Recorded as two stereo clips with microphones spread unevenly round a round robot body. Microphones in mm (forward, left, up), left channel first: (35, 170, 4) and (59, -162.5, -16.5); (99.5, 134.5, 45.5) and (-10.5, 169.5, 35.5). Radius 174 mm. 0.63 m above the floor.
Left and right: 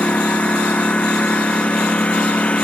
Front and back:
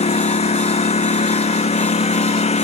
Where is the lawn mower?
10° left.